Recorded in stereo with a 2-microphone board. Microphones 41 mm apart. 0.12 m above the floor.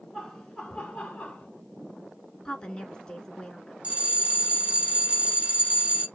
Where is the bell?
30° right (ahead or behind), 1.0 m.